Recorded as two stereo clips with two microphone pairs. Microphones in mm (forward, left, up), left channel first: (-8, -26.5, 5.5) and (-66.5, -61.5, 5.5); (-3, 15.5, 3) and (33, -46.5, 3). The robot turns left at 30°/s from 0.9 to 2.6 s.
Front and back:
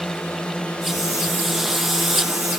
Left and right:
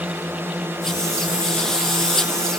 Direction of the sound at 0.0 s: 35° right.